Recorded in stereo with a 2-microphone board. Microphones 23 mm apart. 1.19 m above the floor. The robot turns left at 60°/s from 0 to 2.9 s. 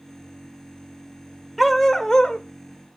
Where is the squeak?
I don't hear a squeak.